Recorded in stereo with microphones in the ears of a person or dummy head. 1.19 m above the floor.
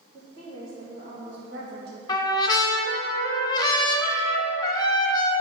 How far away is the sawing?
I don't hear sawing.